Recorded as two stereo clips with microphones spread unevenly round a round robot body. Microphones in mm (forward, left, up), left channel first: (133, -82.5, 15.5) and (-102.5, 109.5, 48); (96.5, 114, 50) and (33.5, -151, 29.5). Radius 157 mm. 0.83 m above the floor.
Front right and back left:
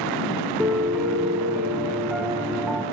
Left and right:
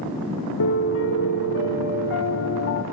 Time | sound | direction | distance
0.6 | a piano | 55° left | 1.1 m